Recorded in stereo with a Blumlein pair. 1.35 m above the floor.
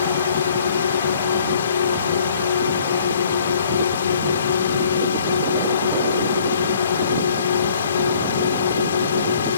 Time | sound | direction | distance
0.0 | a drone | 65° left | ?